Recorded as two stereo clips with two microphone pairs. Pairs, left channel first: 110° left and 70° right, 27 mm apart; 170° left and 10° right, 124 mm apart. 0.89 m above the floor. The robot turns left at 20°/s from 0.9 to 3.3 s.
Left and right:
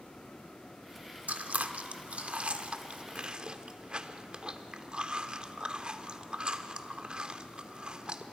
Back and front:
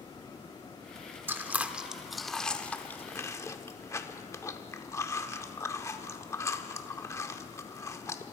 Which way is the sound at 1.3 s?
85° right.